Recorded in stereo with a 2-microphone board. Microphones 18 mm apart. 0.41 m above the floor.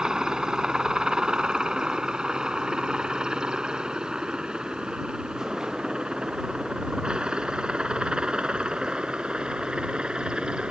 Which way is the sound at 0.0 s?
40° right (ahead or behind).